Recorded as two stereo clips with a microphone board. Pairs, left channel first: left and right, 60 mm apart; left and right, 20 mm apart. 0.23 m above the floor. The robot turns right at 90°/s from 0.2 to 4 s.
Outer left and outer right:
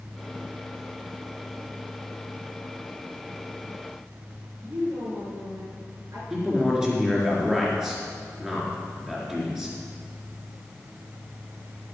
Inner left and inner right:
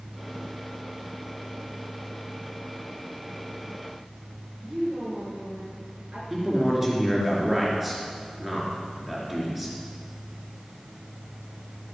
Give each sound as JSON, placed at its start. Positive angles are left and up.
{"t": 4.6, "sound": "a woman speaking", "side_deg": -65, "distance_m": 4.0}
{"t": 6.3, "sound": "a man speaking", "side_deg": -10, "distance_m": 4.0}